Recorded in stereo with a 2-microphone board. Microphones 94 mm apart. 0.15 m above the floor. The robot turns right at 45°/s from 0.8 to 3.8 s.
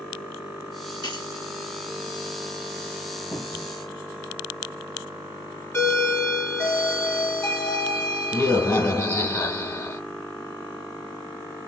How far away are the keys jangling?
About 2 m.